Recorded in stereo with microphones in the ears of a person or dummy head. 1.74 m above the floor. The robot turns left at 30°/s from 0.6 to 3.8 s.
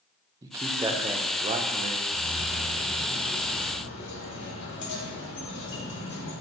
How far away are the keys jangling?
About 3.5 m.